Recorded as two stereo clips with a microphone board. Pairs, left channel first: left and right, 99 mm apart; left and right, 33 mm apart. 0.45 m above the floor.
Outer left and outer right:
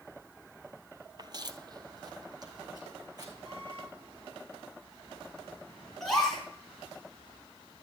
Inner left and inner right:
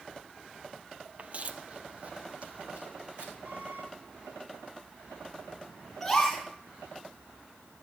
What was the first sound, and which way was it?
Footsteps, 45° right (ahead or behind).